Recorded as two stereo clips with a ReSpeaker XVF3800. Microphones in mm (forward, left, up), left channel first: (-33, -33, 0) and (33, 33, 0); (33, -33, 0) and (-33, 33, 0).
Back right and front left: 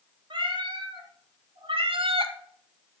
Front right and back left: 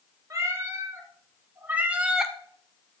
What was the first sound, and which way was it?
A cat meowing, 70° left.